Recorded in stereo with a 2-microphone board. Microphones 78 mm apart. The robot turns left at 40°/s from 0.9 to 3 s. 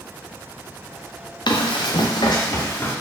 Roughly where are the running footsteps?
Left.